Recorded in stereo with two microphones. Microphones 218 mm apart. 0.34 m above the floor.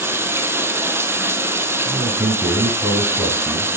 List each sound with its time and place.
0.0 s running water: 10° right (ahead or behind), 1.3 m
1.9 s a man speaking: 10° right (ahead or behind), 2.5 m